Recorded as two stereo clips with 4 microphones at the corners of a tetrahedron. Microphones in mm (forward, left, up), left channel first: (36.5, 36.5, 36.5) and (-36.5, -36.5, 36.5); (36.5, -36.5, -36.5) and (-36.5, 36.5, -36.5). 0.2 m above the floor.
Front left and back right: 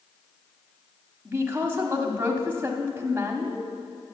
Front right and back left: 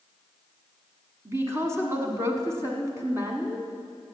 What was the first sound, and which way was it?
A woman speaking, 175° left.